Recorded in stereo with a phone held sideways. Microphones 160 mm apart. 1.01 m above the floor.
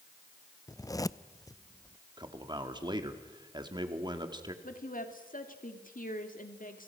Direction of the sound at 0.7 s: 20° left (ahead or behind).